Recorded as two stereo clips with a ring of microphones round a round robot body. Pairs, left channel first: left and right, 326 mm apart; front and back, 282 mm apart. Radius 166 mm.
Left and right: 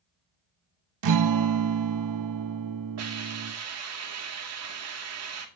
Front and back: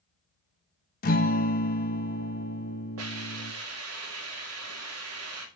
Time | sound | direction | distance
1.0 | a guitar | 60° right | 0.9 m
3.0 | a hiss | 135° right | 2.5 m